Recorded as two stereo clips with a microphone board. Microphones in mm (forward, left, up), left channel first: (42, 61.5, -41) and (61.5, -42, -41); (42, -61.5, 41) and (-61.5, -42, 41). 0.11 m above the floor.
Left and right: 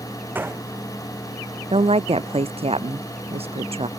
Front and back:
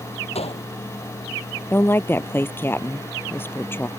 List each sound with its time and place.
0.3 s a gunshot: 10° right
1.7 s a woman speaking: 80° right